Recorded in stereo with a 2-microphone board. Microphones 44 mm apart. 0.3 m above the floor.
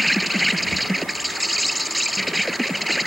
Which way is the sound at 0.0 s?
Centre (ahead or behind).